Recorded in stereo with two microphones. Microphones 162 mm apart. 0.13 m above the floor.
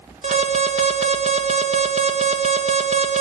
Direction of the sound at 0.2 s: 45° right (ahead or behind).